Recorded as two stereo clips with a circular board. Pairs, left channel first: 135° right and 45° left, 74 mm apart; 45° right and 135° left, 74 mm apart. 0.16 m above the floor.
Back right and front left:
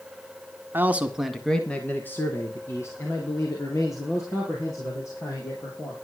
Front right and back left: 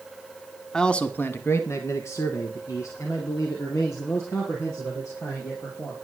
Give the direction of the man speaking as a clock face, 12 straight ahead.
11 o'clock.